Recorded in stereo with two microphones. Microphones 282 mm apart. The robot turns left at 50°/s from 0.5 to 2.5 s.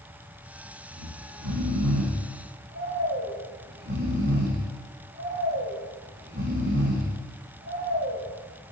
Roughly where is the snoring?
Ahead right.